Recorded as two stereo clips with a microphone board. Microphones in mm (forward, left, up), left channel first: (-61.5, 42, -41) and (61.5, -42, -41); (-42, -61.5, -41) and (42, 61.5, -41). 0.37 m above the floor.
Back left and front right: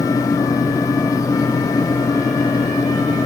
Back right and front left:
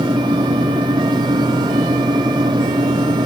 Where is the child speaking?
No child speaking in this recording.